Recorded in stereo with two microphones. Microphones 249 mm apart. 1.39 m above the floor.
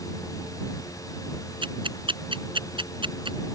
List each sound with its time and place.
1.6 s ticking: 20° right (ahead or behind)